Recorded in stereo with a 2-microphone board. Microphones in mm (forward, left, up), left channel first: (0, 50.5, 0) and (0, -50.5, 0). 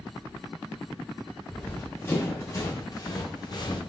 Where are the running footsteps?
15° left (ahead or behind), 2.5 m; by 3.8 s 45° left (ahead or behind), 1.9 m.